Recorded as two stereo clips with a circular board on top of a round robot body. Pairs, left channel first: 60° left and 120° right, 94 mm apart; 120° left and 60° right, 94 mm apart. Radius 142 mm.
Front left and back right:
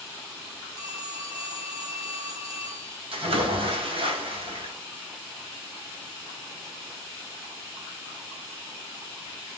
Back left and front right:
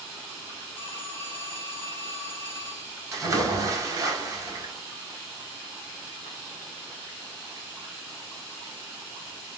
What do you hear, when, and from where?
0.8 s a phone ringing: 165° right, 1.4 m
3.1 s a splash: 115° right, 1.3 m